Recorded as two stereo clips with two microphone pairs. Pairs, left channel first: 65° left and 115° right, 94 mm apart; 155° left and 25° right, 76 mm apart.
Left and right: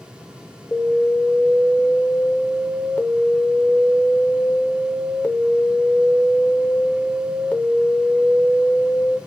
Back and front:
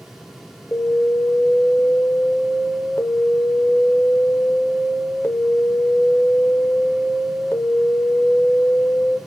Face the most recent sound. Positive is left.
turn(degrees=125)